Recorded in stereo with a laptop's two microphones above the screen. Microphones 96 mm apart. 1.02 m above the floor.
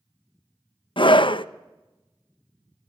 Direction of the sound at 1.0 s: 60° left (ahead or behind).